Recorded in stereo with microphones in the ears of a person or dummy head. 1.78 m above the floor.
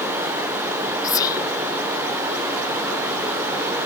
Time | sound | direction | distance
0.0 | running water | 15° right (ahead or behind) | 0.8 m
1.0 | whispering | 30° left (ahead or behind) | 0.6 m